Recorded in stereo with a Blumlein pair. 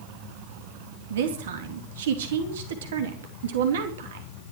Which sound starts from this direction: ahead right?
A woman speaking, at 1.1 s.